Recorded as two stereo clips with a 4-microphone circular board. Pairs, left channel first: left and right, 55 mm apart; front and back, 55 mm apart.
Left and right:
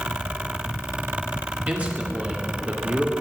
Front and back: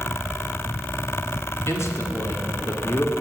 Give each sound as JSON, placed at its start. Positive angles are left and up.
{"t": 1.7, "sound": "a man speaking", "azimuth_deg": -30, "distance_m": 2.5}